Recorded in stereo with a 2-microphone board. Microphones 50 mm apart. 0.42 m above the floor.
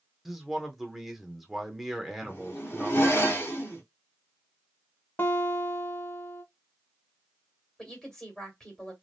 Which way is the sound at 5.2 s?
45° left (ahead or behind).